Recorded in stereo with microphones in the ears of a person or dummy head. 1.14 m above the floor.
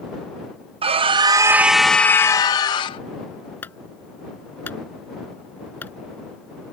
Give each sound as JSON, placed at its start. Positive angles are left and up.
{"t": 0.8, "sound": "a scream", "side_deg": -30}
{"t": 3.6, "sound": "a clunk", "side_deg": 10}